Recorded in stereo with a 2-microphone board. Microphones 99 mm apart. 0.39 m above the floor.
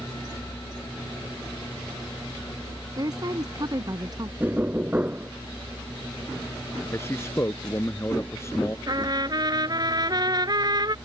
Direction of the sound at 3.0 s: 40° right (ahead or behind).